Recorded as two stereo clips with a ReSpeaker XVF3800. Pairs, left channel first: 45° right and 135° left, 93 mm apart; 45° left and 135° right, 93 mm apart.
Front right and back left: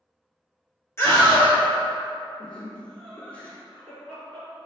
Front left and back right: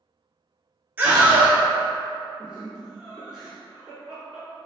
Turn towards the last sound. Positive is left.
turn(degrees=-70)